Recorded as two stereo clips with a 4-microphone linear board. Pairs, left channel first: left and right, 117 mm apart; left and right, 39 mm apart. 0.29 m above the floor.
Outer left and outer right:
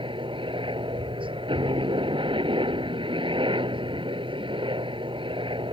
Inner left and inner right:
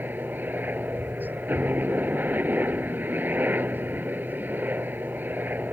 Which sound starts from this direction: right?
A helicopter, at 0.0 s.